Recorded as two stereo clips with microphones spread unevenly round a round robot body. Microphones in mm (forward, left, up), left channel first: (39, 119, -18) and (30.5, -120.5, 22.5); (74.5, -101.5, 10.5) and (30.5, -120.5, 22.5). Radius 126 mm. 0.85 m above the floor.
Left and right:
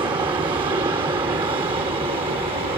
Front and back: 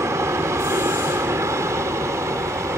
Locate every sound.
0.0 s an aircraft: 170° right; by 2.8 s 165° right